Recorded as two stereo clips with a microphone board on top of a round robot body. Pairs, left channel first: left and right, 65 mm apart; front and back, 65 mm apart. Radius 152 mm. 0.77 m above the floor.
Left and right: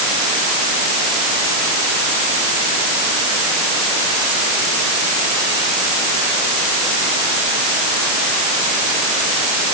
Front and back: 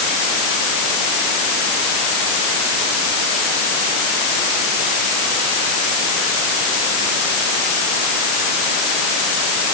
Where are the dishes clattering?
I don't hear dishes clattering.